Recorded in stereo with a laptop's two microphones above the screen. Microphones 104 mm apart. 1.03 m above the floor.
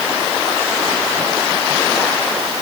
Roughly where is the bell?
I don't hear a bell.